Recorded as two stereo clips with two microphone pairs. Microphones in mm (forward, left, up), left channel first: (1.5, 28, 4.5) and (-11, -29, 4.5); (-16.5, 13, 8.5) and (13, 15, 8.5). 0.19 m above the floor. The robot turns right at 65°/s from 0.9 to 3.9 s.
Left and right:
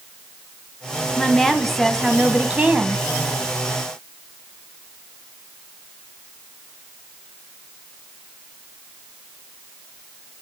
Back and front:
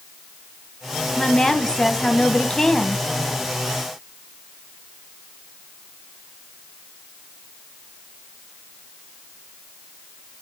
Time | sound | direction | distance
1.2 | a woman speaking | 135° left | 1.0 m